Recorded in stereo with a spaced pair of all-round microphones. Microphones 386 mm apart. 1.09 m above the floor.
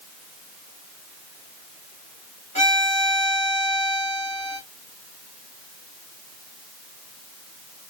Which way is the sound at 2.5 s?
65° right (ahead or behind).